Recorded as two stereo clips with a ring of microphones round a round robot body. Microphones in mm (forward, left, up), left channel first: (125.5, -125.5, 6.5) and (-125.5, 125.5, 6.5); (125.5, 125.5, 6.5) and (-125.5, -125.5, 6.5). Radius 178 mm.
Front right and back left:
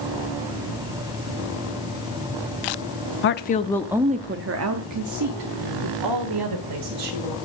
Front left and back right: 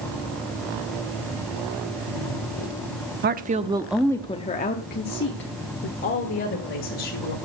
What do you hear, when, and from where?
3.2 s a woman speaking: 85° right, 0.7 m; by 7.3 s 100° left, 2.5 m